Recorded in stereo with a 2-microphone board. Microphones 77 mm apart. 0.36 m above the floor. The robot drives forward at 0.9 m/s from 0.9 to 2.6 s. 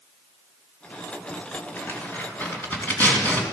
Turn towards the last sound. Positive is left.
turn(degrees=20)  # may be behind; listen again after turning